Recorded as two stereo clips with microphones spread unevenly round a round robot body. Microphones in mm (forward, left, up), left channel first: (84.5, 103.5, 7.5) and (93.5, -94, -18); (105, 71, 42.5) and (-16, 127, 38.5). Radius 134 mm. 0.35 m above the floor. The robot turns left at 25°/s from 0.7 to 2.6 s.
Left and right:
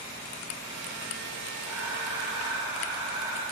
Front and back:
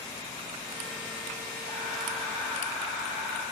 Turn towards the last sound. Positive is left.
turn(degrees=-120)